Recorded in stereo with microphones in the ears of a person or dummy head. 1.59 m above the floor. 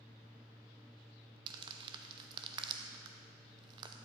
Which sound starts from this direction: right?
Crumpling, at 1.5 s.